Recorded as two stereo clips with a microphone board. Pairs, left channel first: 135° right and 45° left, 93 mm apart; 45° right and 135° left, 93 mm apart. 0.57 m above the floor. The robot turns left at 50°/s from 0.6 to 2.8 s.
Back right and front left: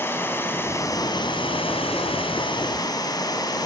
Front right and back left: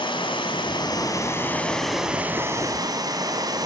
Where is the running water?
70° right, 2.5 m; by 3.7 s straight behind, 2.5 m.